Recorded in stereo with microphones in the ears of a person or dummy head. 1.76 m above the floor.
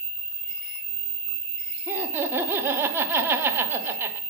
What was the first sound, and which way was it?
Laughter, 10° right (ahead or behind).